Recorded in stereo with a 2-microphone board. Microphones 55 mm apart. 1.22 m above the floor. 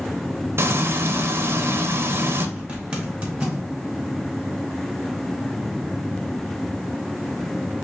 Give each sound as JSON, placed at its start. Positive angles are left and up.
{"t": 0.6, "sound": "frying", "side_deg": -45, "distance_m": 0.5}
{"t": 2.6, "sound": "a zipper", "side_deg": -15, "distance_m": 1.4}